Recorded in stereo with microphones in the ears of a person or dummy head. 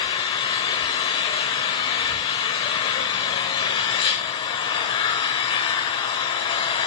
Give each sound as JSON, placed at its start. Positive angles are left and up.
{"t": 0.0, "sound": "an engine running", "side_deg": 30, "distance_m": 1.2}